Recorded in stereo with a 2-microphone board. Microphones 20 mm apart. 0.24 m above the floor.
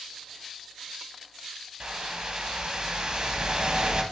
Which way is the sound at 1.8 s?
45° right (ahead or behind).